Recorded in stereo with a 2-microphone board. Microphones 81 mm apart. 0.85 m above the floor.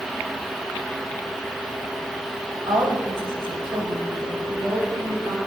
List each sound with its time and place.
2.7 s a woman speaking: 85° right, 3.5 m; by 5.4 s 60° right (ahead or behind), 6 m